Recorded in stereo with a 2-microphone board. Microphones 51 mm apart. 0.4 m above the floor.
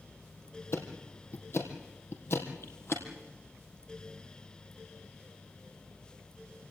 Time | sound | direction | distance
0.7 | ticking | 55° left (ahead or behind) | 3 m